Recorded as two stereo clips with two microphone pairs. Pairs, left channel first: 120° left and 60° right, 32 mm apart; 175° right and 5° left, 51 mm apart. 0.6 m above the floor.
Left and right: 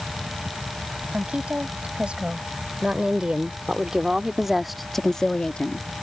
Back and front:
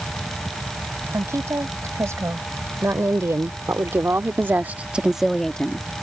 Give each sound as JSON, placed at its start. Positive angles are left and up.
{"t": 1.1, "sound": "a woman speaking", "azimuth_deg": -10}